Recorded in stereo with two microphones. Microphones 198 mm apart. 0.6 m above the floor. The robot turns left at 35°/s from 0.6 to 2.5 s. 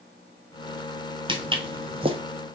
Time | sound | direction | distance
1.3 | footsteps | 25° right (ahead or behind) | 0.6 m